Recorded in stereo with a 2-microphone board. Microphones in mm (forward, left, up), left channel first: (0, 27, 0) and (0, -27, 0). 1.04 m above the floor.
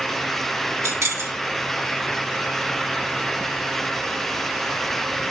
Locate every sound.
0.8 s keys jangling: 70° right (ahead or behind), 2.5 m